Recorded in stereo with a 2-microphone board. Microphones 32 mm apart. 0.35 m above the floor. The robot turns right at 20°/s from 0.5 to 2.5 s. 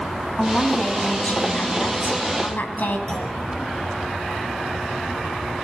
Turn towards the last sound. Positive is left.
turn(degrees=25)  # may be behind; listen again after turning